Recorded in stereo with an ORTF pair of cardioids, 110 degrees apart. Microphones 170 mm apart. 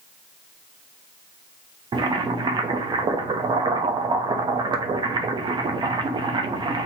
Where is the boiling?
25° right, 0.6 m.